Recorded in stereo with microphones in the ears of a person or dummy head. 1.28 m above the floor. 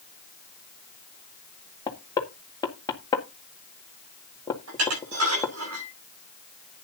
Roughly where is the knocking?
Centre.